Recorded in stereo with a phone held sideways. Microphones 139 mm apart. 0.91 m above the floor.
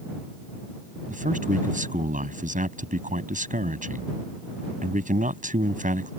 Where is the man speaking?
80° right.